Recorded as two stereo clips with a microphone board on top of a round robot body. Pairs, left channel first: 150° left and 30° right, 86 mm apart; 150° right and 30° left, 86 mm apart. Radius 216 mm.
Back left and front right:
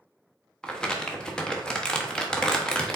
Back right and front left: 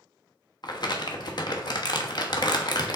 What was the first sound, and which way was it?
Crumpling, 130° right.